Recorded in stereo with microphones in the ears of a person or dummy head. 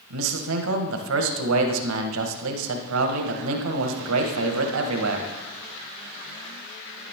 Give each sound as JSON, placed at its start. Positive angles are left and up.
{"t": 0.1, "sound": "a man speaking", "side_deg": -80, "distance_m": 1.5}